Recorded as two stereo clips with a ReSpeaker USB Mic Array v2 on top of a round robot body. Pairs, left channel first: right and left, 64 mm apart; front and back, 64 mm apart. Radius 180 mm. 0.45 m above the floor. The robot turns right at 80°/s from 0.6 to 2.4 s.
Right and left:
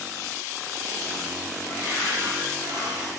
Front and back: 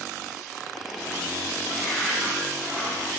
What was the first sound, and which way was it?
A cupboard door, 70° left.